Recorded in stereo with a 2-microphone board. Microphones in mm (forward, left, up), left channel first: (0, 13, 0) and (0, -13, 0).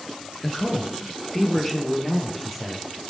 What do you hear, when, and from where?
0.4 s a man speaking: 25° left (ahead or behind), 1.8 m; by 2.9 s 5° right (ahead or behind), 3.5 m